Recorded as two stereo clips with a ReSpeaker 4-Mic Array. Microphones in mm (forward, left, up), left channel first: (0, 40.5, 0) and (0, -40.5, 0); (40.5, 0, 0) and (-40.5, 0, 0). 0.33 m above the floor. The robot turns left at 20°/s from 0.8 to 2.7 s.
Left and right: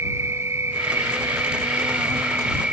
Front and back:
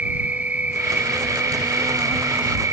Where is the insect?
120° right; by 2.7 s 160° right.